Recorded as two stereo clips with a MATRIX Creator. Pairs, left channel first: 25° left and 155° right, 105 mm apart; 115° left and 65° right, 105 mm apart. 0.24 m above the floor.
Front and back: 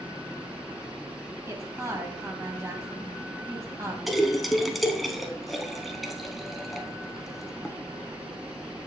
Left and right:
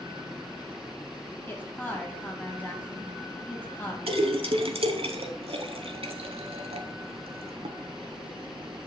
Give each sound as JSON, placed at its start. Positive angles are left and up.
{"t": 1.5, "sound": "a woman speaking", "azimuth_deg": 170, "distance_m": 1.4}
{"t": 4.1, "sound": "a splash", "azimuth_deg": -70, "distance_m": 0.7}